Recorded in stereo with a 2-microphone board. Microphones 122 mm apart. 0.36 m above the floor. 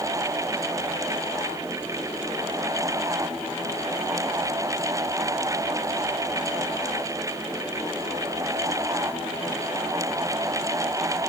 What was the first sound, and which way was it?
Only background noise.